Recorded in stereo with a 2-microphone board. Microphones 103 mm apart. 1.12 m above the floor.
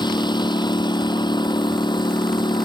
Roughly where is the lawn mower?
Left.